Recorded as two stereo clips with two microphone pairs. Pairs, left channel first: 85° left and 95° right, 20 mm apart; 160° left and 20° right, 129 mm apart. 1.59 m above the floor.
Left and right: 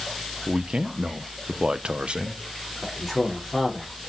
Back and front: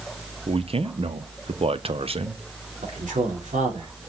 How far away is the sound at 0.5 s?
About 0.9 m.